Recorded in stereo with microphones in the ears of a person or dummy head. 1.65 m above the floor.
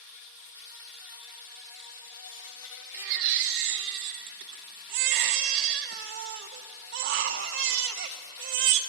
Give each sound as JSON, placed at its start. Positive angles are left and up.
{"t": 0.0, "sound": "an insect", "side_deg": 70, "distance_m": 1.5}
{"t": 2.9, "sound": "a baby crying", "side_deg": -55, "distance_m": 1.0}